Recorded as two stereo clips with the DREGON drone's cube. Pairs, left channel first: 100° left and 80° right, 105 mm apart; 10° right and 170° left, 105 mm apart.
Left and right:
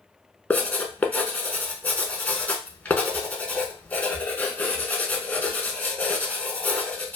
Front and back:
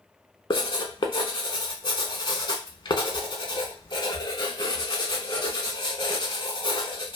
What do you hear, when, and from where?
0.5 s writing: 25° left, 0.6 m